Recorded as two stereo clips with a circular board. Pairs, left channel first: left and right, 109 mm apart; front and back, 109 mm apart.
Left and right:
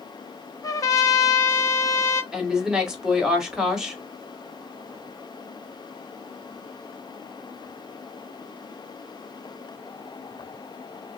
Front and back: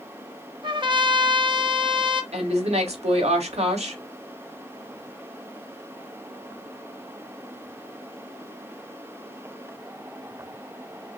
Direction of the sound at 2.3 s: 175° right.